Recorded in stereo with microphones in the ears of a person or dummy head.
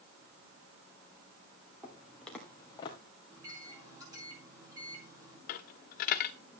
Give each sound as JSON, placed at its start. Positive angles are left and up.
{"t": 1.8, "sound": "footsteps", "side_deg": -10, "distance_m": 2.0}
{"t": 3.3, "sound": "a microwave", "side_deg": -20, "distance_m": 4.0}
{"t": 5.5, "sound": "a dropped coin", "side_deg": 45, "distance_m": 1.0}